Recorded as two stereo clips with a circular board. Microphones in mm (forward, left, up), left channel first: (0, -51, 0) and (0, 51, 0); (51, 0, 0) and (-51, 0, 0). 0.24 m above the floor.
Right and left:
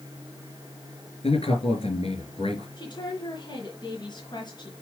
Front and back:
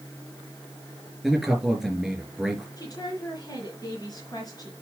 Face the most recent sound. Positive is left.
turn(degrees=-50)